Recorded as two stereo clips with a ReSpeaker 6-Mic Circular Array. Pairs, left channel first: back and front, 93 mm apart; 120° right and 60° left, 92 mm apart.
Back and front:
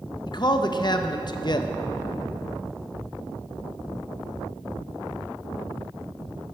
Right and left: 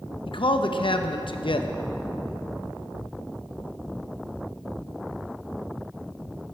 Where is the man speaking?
140° right, 0.7 m.